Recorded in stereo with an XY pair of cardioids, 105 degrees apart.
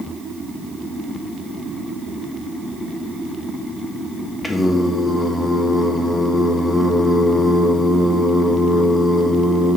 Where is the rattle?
No rattle in this recording.